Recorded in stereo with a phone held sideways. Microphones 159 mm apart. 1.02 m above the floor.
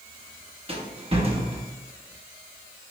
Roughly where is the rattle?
Right.